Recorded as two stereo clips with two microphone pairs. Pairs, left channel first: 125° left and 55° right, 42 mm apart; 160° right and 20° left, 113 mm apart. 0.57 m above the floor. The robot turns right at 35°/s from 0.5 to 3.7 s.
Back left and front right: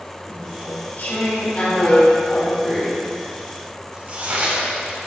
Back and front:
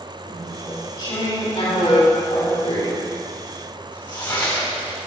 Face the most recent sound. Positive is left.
turn(degrees=-115)